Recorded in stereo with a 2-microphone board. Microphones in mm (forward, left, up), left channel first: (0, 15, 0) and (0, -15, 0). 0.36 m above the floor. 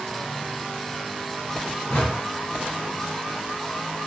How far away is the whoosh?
About 1.6 m.